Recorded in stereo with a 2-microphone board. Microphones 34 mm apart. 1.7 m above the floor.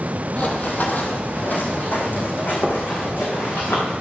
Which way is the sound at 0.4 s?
40° left (ahead or behind).